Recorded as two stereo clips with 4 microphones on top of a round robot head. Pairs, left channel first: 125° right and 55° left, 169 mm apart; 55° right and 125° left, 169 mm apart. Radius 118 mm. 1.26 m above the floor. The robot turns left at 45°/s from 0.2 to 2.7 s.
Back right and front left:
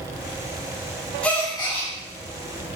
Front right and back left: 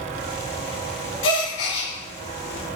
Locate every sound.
1.2 s a gasp: 45° right, 1.3 m; by 1.9 s 75° right, 1.3 m